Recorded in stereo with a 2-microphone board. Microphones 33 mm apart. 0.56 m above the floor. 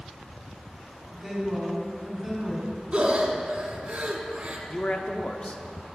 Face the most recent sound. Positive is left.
turn(degrees=35)  # may be behind; listen again after turning